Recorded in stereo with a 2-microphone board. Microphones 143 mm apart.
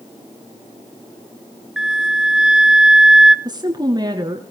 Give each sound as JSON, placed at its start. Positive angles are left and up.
{"t": 1.8, "sound": "a flute", "side_deg": -5, "distance_m": 0.7}
{"t": 3.5, "sound": "a woman speaking", "side_deg": -30, "distance_m": 1.9}